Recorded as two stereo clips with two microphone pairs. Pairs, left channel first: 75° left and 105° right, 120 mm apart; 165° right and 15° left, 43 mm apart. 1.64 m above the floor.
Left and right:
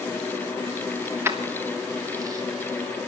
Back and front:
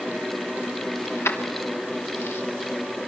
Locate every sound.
1.1 s keys jangling: 175° right, 2.5 m; by 2.4 s 165° right, 3.5 m